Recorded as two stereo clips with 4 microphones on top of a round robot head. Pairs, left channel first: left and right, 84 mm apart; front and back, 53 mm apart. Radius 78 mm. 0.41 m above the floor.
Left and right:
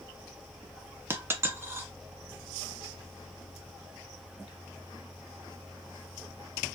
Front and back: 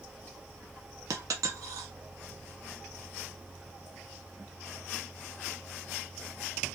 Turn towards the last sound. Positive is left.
turn(degrees=-155)